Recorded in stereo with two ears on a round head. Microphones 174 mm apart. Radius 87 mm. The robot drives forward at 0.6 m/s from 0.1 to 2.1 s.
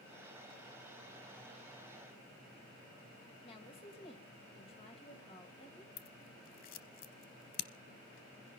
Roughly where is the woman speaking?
Left.